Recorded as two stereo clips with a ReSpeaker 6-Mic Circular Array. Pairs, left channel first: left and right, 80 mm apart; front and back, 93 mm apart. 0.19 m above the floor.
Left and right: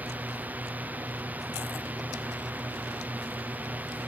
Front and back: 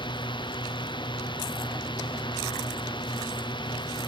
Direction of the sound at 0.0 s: 20° right.